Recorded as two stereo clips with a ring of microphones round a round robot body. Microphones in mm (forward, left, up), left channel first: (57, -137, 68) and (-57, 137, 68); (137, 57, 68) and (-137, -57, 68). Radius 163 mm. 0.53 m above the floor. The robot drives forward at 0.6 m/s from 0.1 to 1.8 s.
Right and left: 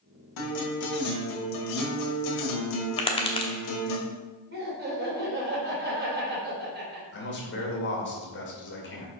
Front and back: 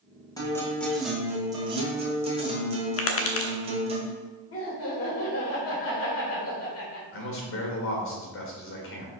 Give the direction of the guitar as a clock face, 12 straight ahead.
2 o'clock.